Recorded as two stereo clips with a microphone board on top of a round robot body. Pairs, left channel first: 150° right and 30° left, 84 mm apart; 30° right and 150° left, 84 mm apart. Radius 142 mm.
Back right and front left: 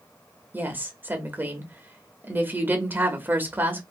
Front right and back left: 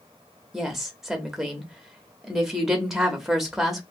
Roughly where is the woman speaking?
Left.